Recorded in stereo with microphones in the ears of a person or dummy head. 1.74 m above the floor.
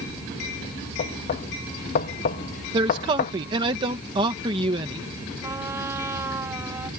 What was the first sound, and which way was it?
Knocking, 35° left (ahead or behind).